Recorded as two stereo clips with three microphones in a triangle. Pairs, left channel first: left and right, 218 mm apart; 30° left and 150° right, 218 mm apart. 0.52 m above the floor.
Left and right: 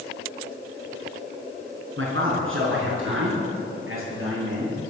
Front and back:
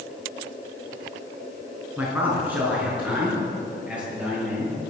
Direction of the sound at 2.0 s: 70° right.